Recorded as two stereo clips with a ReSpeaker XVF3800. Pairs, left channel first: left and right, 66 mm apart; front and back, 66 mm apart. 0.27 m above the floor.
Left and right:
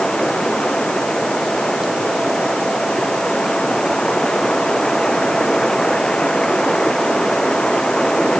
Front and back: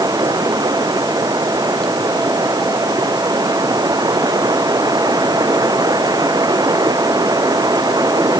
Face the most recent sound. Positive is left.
turn(degrees=170)